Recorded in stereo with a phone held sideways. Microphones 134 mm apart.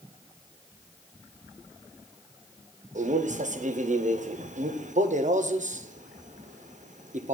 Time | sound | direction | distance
3.0 | a man speaking | 65° right (ahead or behind) | 0.6 m